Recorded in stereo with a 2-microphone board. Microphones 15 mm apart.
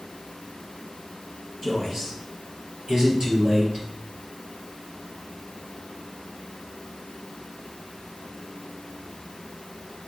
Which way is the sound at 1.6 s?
20° right (ahead or behind).